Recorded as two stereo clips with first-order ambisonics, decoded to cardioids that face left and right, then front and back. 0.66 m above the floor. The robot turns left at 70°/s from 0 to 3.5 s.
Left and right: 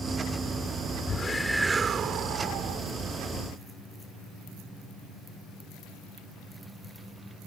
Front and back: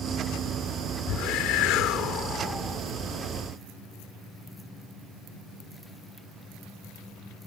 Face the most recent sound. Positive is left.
turn(degrees=-140)